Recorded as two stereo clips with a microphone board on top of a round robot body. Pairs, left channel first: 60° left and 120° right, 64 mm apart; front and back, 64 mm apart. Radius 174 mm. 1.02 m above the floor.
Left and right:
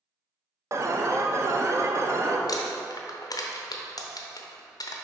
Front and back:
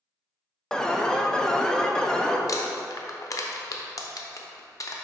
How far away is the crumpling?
About 0.8 m.